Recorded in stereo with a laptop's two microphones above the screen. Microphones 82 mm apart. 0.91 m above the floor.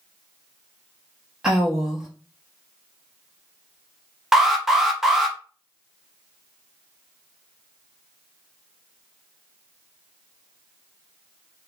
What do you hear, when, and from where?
1.4 s a woman speaking: 10° right (ahead or behind), 0.9 m
4.3 s an alarm: 5° right (ahead or behind), 0.8 m